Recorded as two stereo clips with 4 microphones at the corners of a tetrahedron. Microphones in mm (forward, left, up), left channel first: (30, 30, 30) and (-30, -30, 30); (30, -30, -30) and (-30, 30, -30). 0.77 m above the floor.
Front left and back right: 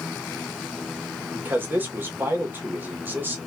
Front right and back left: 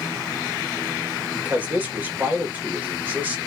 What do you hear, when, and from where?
1.3 s a man speaking: 175° right, 1.0 m